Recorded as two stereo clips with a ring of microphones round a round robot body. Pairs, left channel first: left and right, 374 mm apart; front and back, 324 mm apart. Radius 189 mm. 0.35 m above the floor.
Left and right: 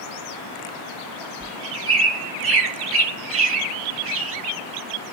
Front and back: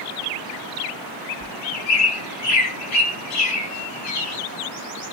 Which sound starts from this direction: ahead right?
A bird, at 1.4 s.